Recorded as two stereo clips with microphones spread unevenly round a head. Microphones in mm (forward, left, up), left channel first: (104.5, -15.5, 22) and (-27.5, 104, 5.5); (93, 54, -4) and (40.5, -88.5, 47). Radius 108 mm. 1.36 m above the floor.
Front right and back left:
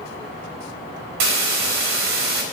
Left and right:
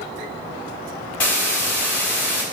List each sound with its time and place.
1.2 s a hiss: 155° left, 4 m